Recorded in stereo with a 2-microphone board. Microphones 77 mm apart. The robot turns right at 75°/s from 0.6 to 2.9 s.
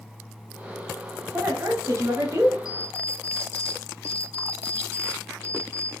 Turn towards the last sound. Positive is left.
turn(degrees=35)  # may be behind; listen again after turning